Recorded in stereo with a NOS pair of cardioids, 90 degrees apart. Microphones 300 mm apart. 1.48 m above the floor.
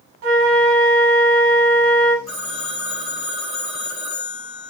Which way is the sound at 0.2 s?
50° right.